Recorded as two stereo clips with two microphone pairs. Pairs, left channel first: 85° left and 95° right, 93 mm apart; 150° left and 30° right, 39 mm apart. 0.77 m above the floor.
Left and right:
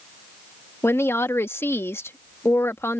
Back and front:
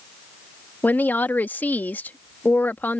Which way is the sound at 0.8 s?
145° left.